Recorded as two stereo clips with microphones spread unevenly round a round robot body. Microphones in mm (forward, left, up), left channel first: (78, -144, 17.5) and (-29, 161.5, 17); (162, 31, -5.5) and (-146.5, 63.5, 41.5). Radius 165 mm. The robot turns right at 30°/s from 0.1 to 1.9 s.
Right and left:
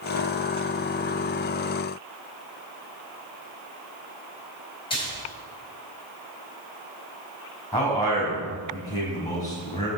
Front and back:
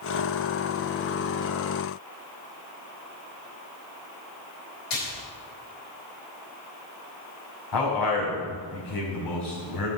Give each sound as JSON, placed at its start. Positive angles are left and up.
{"t": 4.9, "sound": "a splash", "azimuth_deg": 5, "distance_m": 4.5}
{"t": 7.7, "sound": "a man speaking", "azimuth_deg": 10, "distance_m": 5.0}